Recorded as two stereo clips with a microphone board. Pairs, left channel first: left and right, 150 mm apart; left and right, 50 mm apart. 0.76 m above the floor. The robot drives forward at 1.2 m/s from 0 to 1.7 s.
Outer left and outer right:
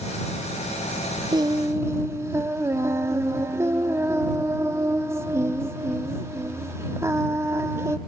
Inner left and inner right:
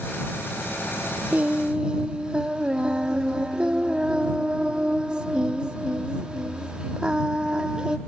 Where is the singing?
30° right (ahead or behind), 0.6 m; by 8.0 s 20° right (ahead or behind), 0.9 m.